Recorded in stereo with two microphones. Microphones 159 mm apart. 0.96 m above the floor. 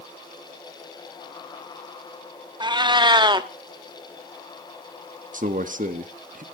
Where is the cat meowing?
30° right (ahead or behind), 0.7 m.